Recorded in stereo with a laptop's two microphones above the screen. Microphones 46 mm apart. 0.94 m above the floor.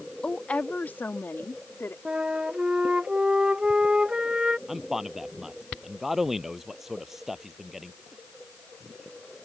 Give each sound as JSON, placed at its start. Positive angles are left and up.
{"t": 0.2, "sound": "a woman speaking", "side_deg": 20}
{"t": 2.0, "sound": "a flute", "side_deg": -20}
{"t": 4.7, "sound": "a man speaking", "side_deg": -5}